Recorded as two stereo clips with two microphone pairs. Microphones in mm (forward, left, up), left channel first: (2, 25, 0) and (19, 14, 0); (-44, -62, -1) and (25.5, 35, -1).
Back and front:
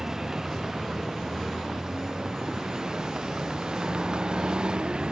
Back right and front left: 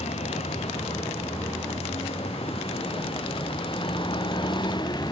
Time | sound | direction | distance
0.0 | a vehicle | 100° right | ?